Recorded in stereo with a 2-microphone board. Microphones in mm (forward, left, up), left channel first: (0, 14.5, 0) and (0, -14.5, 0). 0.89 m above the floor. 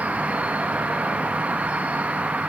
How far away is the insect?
About 0.8 m.